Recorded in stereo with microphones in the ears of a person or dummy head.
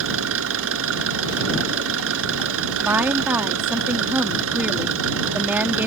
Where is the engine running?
80° right.